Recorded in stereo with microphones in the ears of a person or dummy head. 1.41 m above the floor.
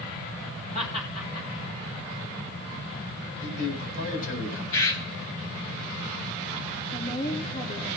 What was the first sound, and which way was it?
Laughter, 45° left (ahead or behind).